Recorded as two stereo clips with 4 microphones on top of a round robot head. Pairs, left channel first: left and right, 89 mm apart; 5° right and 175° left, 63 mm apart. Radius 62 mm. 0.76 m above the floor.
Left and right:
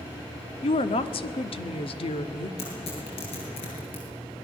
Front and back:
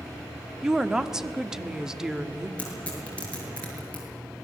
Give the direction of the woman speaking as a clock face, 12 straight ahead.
9 o'clock.